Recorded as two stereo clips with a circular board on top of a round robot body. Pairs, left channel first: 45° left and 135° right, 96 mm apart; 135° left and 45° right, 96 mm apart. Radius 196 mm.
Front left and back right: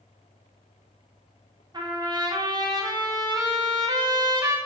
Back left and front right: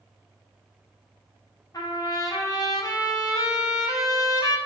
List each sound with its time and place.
1.7 s a trumpet: 175° right, 0.9 m